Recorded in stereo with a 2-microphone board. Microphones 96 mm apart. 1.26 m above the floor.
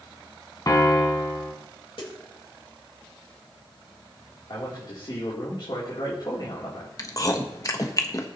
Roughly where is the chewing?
Left.